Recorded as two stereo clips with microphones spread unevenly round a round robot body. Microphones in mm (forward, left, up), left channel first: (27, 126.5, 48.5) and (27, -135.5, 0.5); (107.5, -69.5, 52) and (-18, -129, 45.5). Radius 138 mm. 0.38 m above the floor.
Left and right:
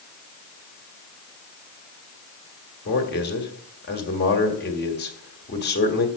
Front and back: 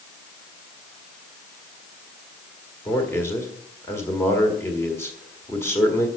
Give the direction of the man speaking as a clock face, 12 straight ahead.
9 o'clock.